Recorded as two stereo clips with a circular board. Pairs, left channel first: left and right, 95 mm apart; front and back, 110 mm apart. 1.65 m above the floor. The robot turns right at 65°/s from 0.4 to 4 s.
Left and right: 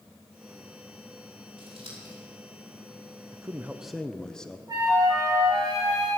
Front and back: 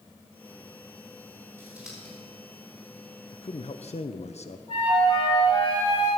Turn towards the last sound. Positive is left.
turn(degrees=-35)